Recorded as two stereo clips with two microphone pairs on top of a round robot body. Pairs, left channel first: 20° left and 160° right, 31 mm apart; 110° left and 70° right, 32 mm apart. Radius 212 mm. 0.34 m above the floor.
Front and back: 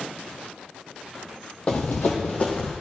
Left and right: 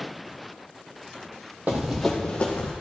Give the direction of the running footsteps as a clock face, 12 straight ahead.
1 o'clock.